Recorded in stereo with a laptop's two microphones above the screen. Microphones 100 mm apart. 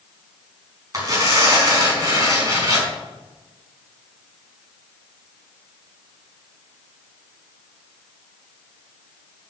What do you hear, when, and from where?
0.9 s tearing paper: 35° right (ahead or behind), 5 m